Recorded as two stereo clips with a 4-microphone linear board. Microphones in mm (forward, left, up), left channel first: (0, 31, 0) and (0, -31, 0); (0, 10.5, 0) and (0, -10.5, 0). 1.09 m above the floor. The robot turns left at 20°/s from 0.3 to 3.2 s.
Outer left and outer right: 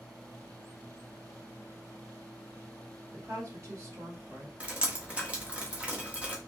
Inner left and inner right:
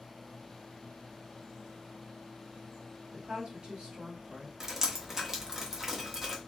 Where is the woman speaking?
45° right (ahead or behind), 1.5 m.